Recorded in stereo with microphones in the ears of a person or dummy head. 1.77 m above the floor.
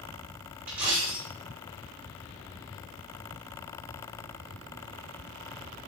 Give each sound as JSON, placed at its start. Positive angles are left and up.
{"t": 0.7, "sound": "a dropped coin", "side_deg": -10, "distance_m": 1.3}